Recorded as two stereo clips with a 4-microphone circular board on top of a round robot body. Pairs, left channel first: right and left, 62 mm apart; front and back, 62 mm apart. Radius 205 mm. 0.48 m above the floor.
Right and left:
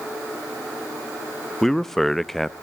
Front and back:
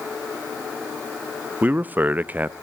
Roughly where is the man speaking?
Behind.